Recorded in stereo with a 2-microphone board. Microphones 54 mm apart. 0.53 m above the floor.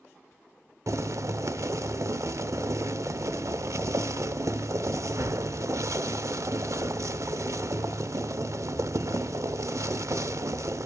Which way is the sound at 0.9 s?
65° right (ahead or behind).